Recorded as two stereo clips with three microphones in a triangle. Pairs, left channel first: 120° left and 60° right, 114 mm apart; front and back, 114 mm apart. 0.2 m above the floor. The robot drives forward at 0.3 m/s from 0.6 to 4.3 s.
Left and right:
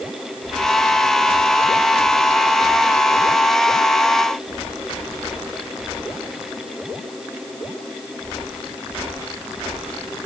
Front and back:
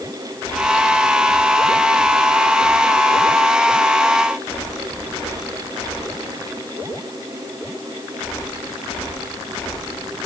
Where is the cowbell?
I don't hear a cowbell.